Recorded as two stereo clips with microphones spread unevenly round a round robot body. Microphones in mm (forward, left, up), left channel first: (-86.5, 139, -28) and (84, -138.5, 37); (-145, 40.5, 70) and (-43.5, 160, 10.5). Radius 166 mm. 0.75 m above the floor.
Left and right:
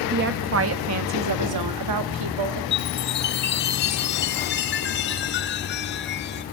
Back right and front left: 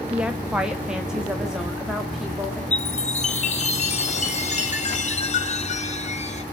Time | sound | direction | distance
0.1 | a woman speaking | straight ahead | 1.0 m
2.7 | a chime | 175° left | 2 m